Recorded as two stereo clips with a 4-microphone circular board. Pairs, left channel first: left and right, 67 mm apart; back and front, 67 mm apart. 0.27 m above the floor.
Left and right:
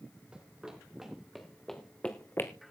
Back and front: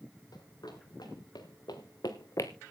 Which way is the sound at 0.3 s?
165° right.